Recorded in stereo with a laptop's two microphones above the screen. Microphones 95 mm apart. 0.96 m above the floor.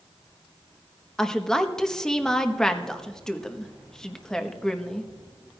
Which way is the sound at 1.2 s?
5° left (ahead or behind).